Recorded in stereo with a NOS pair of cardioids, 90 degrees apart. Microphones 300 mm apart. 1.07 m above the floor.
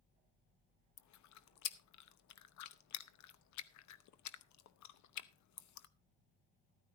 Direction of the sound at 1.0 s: 70° left.